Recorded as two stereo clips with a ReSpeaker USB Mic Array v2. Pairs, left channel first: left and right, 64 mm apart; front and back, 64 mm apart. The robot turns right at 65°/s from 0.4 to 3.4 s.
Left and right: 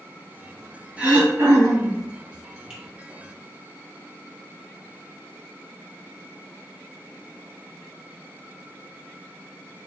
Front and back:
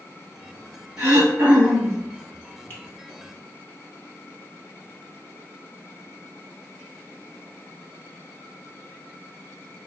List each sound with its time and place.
1.0 s throat clearing: 160° right, 1.3 m; by 2.0 s 90° right, 1.3 m
2.7 s a finger snap: 25° right, 1.1 m; by 2.8 s 20° right, 1.1 m